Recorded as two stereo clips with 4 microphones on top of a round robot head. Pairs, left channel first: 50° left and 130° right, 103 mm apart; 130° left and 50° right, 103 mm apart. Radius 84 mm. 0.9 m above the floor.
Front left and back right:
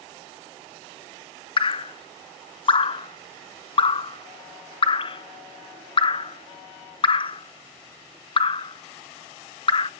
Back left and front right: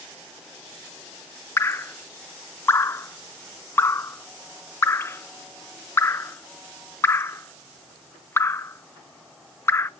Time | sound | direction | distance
1.6 | dripping | 65° left | 0.6 m